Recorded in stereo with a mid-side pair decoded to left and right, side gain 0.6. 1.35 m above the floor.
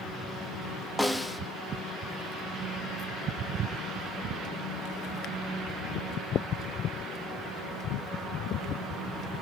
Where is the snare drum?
5° left, 1.1 m.